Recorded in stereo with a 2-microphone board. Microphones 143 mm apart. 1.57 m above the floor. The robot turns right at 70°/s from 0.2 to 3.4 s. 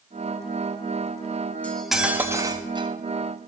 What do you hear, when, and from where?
1.6 s cutlery clinking: 165° left, 1.1 m; by 2.9 s 110° right, 1.1 m